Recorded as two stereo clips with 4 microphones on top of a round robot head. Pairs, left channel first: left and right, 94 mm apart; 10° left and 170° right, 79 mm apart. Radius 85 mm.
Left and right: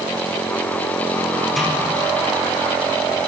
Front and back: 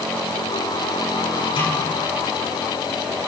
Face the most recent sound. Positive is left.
turn(degrees=0)